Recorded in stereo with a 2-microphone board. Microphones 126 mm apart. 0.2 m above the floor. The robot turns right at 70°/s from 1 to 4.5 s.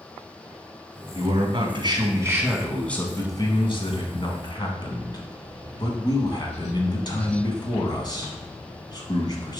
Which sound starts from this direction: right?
A man speaking, at 1.1 s.